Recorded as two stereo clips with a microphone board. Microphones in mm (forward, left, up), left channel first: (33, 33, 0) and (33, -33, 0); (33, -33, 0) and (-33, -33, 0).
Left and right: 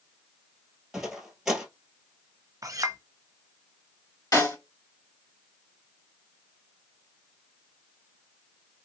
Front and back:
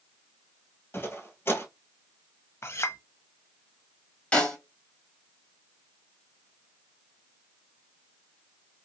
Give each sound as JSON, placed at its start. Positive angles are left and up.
{"t": 0.9, "sound": "footsteps", "azimuth_deg": -10, "distance_m": 1.3}
{"t": 2.6, "sound": "a clink", "azimuth_deg": -50, "distance_m": 0.6}
{"t": 4.3, "sound": "a snare drum", "azimuth_deg": 75, "distance_m": 2.0}